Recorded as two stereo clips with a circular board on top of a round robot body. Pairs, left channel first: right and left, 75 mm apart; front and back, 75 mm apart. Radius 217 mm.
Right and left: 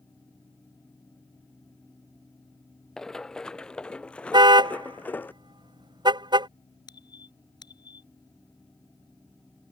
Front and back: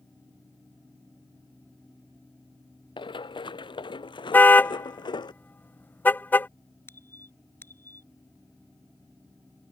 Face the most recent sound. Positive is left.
turn(degrees=-60)